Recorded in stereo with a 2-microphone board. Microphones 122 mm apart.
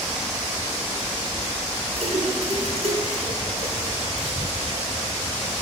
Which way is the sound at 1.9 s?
50° right (ahead or behind).